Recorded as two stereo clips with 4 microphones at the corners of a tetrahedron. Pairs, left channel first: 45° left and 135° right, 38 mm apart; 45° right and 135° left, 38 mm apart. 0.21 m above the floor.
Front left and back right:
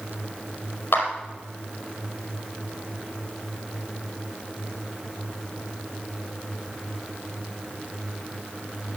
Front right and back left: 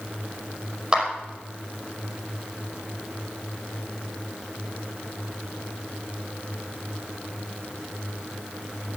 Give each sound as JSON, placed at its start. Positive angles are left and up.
{"t": 0.9, "sound": "a clap", "azimuth_deg": 70, "distance_m": 5.0}